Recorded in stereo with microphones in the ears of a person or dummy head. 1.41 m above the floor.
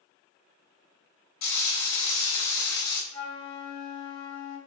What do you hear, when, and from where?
1.4 s frying: 65° left (ahead or behind), 1.9 m
3.1 s a flute: 40° left (ahead or behind), 1.9 m